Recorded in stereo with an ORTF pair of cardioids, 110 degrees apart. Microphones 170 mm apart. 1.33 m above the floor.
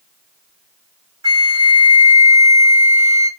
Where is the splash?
I don't hear a splash.